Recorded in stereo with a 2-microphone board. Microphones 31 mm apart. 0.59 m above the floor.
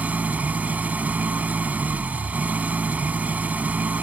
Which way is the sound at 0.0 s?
55° right (ahead or behind).